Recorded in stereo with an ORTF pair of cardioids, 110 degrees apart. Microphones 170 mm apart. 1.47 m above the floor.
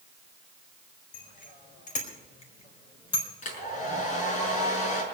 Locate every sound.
1.1 s a bicycle bell: 60° left, 5 m; by 3.3 s 25° left, 4 m
3.4 s a hair dryer: 50° left, 6 m